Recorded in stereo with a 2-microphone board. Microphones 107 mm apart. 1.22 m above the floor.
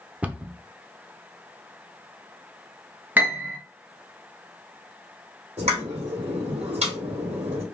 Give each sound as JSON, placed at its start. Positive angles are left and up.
{"t": 0.2, "sound": "a cupboard door", "side_deg": -15, "distance_m": 0.5}
{"t": 3.2, "sound": "a piano", "side_deg": -15, "distance_m": 1.3}
{"t": 5.6, "sound": "a pop", "side_deg": -85, "distance_m": 3.5}